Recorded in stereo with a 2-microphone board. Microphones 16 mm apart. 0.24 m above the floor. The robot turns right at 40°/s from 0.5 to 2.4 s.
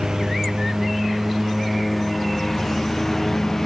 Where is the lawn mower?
70° right (ahead or behind); by 3.7 s 15° left (ahead or behind).